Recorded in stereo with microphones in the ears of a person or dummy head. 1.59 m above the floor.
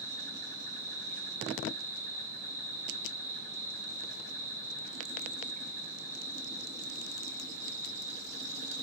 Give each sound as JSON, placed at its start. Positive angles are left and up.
{"t": 0.0, "sound": "an insect", "side_deg": -40, "distance_m": 4.0}